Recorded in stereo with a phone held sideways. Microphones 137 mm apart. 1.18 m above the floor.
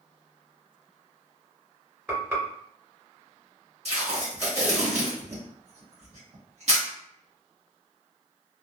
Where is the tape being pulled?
50° right (ahead or behind), 1.4 m.